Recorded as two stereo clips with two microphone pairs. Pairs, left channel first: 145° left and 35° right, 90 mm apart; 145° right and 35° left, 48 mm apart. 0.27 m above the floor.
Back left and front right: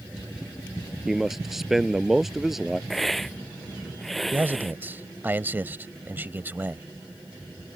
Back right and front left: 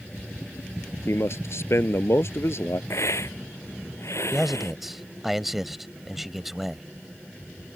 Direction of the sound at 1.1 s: 120° right.